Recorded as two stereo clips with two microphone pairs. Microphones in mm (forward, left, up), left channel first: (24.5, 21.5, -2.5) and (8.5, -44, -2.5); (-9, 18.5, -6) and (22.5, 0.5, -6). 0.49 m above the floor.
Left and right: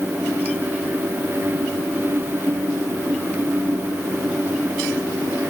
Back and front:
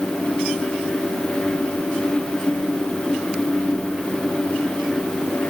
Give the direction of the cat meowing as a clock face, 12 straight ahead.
No cat meowing in this recording.